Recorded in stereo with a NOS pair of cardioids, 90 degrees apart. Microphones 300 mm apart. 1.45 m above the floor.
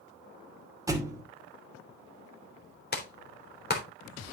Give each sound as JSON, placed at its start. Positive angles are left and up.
{"t": 0.9, "sound": "a thud", "azimuth_deg": -10, "distance_m": 2.5}
{"t": 2.9, "sound": "a clap", "azimuth_deg": 35, "distance_m": 3.5}